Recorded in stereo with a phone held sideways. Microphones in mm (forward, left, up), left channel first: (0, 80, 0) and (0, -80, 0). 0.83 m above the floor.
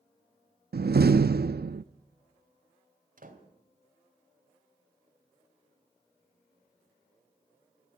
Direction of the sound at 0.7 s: 80° right.